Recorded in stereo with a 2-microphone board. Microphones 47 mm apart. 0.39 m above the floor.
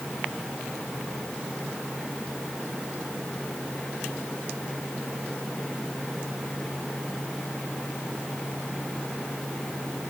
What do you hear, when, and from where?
Only background noise.